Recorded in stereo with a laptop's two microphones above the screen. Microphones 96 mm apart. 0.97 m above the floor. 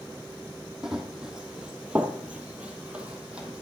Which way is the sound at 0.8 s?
5° right (ahead or behind).